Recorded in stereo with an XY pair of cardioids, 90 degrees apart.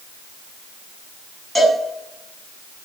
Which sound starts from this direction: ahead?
A cowbell, at 1.6 s.